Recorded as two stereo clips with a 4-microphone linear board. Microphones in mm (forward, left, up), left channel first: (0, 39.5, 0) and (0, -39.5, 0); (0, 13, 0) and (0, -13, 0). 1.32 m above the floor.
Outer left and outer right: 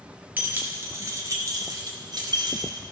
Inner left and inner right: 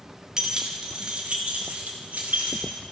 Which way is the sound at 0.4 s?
25° right (ahead or behind).